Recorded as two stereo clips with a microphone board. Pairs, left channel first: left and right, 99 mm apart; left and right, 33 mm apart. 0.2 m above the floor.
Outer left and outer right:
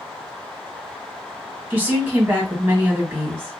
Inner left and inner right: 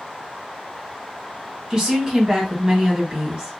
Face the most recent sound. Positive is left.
turn(degrees=-20)  # may be behind; listen again after turning